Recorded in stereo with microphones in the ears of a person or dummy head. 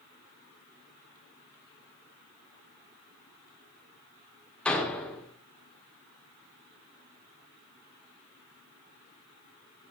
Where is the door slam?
15° left (ahead or behind), 1.9 m.